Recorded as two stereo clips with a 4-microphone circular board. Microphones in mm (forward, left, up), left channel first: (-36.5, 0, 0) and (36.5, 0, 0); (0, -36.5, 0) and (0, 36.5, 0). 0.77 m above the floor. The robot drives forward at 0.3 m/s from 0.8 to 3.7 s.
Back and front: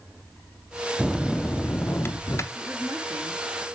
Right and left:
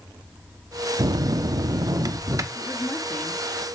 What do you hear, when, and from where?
1.0 s a bell: 90° left, 0.5 m; by 2.5 s 130° left, 0.7 m
2.5 s a woman speaking: 70° right, 1.3 m; by 3.4 s 90° right, 1.2 m